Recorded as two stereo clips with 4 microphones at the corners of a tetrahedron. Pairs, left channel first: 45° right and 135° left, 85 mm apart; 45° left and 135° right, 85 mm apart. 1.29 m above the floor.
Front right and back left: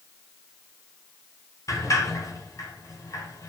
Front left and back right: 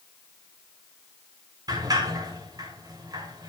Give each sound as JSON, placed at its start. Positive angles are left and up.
{"t": 1.7, "sound": "a sliding door", "azimuth_deg": -95, "distance_m": 4.5}